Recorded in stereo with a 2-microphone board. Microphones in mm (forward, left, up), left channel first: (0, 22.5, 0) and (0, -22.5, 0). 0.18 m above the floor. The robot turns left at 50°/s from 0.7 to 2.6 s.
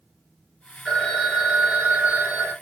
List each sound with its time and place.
0.8 s a phone ringing: 10° left, 1.9 m; by 2.5 s 75° right, 1.9 m